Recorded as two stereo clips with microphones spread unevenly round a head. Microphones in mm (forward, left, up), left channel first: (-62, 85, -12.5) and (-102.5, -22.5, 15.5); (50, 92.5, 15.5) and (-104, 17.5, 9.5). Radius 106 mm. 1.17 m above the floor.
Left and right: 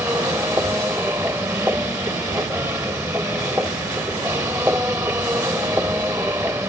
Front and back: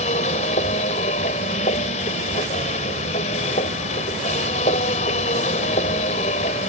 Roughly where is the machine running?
Ahead right.